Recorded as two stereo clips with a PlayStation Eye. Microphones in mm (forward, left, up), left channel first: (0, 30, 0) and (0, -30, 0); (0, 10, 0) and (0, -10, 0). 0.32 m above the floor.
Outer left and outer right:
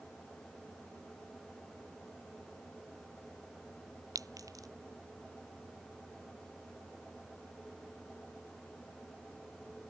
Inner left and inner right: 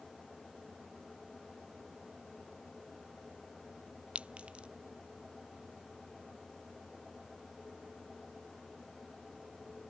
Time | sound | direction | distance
4.2 | a clink | 70° right (ahead or behind) | ?